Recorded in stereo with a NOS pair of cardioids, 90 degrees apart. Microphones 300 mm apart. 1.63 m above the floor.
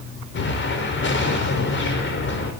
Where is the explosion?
40° left, 5 m.